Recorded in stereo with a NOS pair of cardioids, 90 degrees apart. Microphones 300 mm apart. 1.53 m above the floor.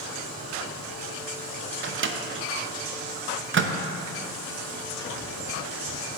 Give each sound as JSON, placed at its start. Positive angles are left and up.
{"t": 1.8, "sound": "a microwave", "azimuth_deg": -40, "distance_m": 0.8}